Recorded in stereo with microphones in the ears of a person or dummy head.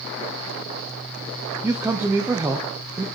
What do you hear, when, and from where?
1.6 s a man speaking: 10° right (ahead or behind), 0.7 m